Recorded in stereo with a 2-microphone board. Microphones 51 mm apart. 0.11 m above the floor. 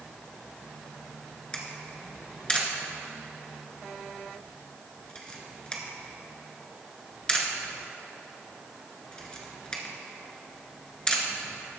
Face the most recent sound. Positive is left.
turn(degrees=20)  # may be behind; listen again after turning